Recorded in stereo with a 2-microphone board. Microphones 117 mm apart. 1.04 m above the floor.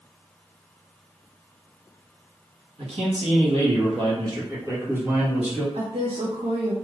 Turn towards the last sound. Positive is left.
turn(degrees=-55)  # may be behind; listen again after turning